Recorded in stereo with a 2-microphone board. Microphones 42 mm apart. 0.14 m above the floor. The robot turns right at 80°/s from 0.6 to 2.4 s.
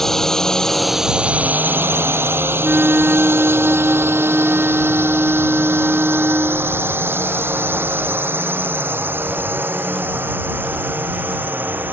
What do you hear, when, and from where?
0.0 s a drone: 10° left (ahead or behind); by 11.9 s 50° right (ahead or behind)
2.6 s a flute: 45° right (ahead or behind)